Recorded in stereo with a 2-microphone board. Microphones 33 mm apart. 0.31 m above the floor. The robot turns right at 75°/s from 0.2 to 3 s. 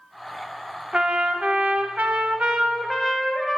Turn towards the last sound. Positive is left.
turn(degrees=5)